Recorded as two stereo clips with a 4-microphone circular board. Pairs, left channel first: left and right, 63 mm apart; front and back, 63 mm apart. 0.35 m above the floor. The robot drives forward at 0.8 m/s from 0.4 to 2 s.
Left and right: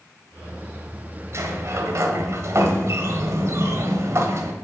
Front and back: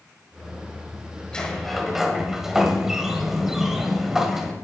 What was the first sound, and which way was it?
A sliding door, 75° right.